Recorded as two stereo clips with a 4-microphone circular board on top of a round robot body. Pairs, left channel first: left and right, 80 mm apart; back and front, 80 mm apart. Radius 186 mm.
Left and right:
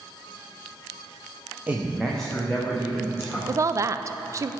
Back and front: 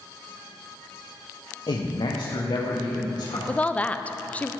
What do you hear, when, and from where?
1.7 s a man speaking: 160° right, 0.8 m; by 3.4 s 155° left, 2 m
3.5 s a woman speaking: 115° right, 0.5 m